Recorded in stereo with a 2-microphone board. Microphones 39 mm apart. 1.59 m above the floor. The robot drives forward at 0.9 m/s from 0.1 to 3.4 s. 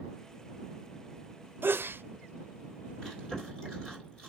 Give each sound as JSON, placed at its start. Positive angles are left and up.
{"t": 1.6, "sound": "a sneeze", "side_deg": -55, "distance_m": 0.6}
{"t": 3.0, "sound": "chewing", "side_deg": 15, "distance_m": 3.0}